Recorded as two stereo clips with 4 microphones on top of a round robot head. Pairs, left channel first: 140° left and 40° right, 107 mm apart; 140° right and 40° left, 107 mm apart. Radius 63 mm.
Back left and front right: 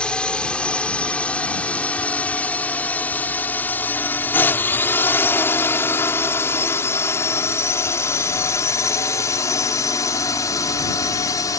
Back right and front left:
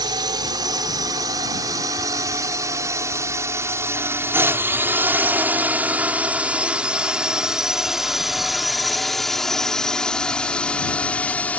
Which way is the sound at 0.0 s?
60° left.